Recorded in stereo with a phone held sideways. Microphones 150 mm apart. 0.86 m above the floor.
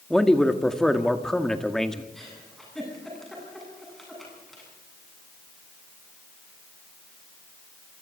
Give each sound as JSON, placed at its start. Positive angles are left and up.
{"t": 0.1, "sound": "a man speaking", "side_deg": 5, "distance_m": 1.6}
{"t": 2.1, "sound": "a giggle", "side_deg": 0, "distance_m": 10.0}